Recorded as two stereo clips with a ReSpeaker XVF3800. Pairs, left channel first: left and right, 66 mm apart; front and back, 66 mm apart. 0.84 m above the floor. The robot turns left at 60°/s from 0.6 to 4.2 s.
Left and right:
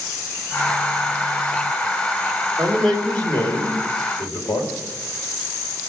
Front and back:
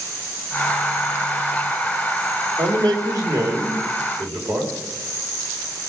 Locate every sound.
2.6 s a man speaking: 165° right, 3.5 m; by 4.7 s 100° left, 3.5 m